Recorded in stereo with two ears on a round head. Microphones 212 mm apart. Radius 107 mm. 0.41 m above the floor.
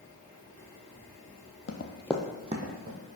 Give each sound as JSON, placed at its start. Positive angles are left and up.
{"t": 1.7, "sound": "running footsteps", "side_deg": 50, "distance_m": 0.8}